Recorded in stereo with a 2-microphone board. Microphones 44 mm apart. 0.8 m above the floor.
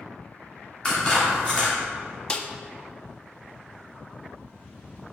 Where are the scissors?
20° left (ahead or behind), 1.8 m.